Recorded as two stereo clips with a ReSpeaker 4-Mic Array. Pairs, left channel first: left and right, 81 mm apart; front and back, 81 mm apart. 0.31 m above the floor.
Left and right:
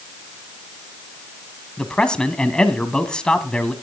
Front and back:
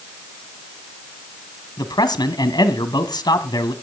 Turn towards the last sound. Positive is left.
turn(degrees=10)